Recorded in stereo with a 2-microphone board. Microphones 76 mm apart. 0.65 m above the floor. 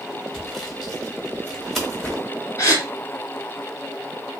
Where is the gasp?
40° left (ahead or behind), 2 m.